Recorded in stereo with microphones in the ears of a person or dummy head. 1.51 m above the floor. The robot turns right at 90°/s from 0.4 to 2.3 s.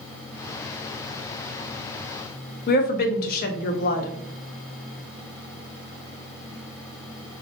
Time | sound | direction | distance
2.7 | a woman speaking | 50° left (ahead or behind) | 0.5 m